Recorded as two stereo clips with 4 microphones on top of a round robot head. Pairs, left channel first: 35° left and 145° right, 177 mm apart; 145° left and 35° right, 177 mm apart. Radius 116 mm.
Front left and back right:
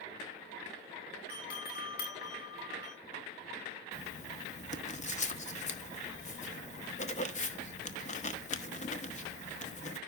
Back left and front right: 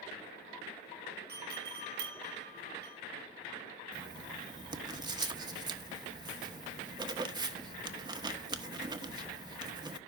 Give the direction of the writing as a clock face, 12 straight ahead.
11 o'clock.